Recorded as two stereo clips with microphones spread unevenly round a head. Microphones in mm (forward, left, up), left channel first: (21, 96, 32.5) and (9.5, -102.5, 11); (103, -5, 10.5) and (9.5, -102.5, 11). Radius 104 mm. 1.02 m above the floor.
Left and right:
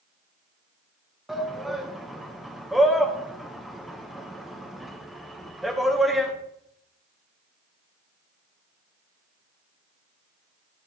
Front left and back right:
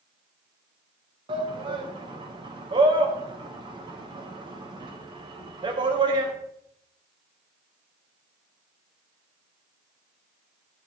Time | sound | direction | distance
1.3 | a shout | 175° right | 0.9 m